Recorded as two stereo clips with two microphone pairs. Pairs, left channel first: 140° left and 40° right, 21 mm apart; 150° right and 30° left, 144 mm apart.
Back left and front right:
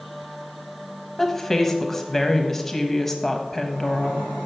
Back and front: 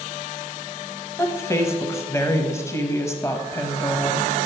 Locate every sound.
1.2 s a woman speaking: 175° right, 1.0 m